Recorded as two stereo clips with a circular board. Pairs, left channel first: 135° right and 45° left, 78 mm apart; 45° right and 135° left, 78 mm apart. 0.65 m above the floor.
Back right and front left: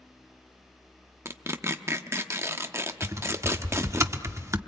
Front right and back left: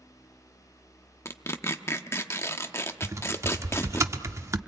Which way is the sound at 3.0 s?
90° left.